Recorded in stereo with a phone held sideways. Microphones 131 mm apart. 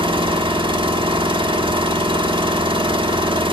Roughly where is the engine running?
Right.